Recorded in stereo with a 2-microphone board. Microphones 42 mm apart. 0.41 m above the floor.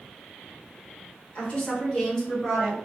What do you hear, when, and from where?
1.4 s a woman speaking: 35° left (ahead or behind), 1.7 m; by 2.8 s 10° left (ahead or behind), 2 m